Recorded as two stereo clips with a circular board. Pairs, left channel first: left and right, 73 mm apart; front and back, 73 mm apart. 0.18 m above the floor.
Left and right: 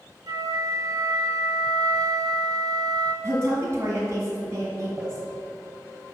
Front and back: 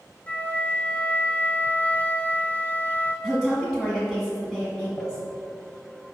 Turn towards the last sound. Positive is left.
turn(degrees=-65)